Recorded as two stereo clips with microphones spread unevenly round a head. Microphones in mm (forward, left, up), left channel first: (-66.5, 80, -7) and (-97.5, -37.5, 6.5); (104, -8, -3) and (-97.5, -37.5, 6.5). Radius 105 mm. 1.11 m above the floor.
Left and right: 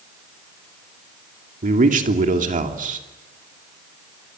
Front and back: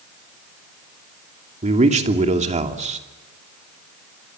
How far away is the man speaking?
About 3 m.